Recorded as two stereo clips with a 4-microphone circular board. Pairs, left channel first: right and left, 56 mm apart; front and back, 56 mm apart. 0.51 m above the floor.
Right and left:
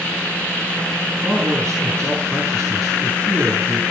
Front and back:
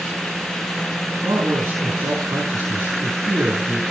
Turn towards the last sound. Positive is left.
turn(degrees=170)